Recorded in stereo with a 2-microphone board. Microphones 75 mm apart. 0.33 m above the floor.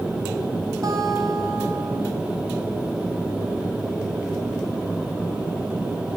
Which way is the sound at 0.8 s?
50° right (ahead or behind).